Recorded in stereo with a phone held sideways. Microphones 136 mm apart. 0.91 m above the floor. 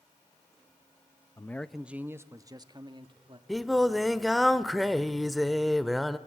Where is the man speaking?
25° left (ahead or behind), 0.5 m; by 3.4 s 40° right (ahead or behind), 1.6 m.